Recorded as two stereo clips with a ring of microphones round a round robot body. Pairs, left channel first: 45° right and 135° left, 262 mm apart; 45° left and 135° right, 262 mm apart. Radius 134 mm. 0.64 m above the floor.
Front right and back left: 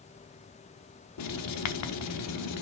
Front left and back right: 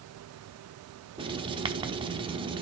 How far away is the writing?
About 1.0 m.